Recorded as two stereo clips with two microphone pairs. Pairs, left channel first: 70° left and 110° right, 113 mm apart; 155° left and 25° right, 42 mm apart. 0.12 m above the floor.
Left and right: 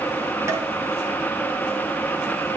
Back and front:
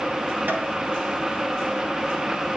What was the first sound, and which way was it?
Tapping, 50° right.